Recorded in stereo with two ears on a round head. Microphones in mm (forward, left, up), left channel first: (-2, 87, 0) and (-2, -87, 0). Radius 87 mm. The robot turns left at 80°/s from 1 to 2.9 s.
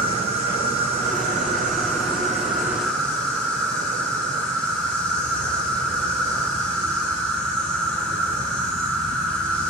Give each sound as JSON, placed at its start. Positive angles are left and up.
{"t": 0.0, "sound": "an insect", "azimuth_deg": -35, "distance_m": 5.5}